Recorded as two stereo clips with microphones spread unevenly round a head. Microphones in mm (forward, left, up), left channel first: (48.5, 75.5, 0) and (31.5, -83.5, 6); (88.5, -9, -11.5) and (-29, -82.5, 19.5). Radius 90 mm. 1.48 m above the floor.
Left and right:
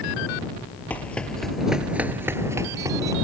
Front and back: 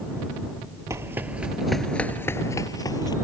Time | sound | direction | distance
0.9 | running footsteps | 165° left | ?